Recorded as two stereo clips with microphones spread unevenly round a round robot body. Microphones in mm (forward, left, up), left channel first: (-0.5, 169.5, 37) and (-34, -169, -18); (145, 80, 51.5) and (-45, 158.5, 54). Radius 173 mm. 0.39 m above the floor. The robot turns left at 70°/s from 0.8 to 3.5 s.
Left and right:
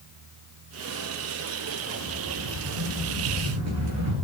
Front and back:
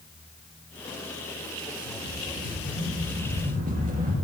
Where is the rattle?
25° right, 5 m; by 4.1 s 140° right, 5 m.